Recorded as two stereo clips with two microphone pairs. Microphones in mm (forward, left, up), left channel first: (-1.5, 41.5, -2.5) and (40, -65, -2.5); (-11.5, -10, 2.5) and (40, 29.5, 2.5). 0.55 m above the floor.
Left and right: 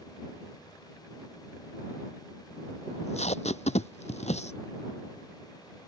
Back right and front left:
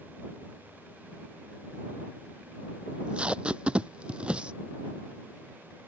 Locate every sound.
2.9 s tape being pulled: 110° left